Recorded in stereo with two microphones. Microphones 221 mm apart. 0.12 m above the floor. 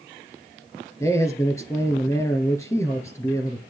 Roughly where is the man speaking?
Centre.